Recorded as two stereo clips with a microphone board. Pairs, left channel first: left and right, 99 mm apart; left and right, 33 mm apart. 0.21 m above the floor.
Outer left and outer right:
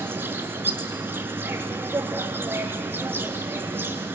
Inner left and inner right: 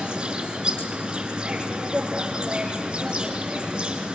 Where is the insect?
20° right (ahead or behind), 1.3 m.